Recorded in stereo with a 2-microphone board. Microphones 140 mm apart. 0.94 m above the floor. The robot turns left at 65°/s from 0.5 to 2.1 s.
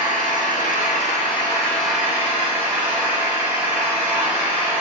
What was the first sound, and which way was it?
An engine running, 90° left.